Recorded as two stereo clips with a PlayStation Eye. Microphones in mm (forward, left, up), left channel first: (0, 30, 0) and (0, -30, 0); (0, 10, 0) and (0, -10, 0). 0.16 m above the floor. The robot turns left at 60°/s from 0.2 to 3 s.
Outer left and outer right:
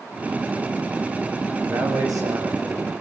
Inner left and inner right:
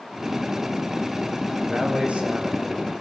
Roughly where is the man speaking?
Ahead right.